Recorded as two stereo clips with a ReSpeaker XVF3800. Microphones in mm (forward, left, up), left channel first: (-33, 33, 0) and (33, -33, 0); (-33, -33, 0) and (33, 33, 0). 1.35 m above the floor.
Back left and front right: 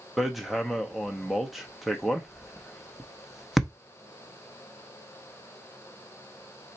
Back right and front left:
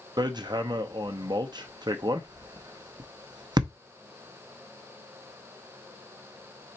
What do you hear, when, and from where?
0.2 s hammering: 45° left, 0.6 m